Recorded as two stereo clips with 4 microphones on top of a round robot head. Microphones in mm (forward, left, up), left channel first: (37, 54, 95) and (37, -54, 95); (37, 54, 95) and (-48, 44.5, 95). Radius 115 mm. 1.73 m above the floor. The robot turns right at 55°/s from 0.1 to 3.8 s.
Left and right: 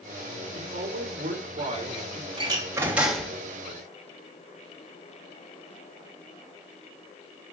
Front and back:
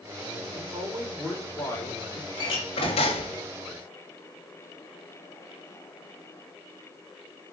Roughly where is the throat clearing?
No throat clearing in this recording.